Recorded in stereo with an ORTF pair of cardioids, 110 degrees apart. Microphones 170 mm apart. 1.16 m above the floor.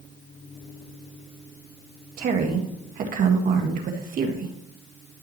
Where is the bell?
No bell in this recording.